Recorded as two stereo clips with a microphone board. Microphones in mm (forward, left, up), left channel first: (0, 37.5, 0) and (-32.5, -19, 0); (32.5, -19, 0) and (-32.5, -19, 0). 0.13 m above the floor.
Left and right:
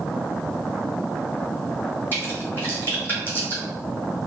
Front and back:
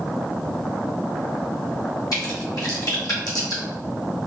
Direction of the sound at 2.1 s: Straight ahead.